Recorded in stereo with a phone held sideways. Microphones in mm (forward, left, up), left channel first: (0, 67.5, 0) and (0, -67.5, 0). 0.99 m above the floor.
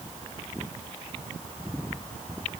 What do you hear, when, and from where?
Only background noise.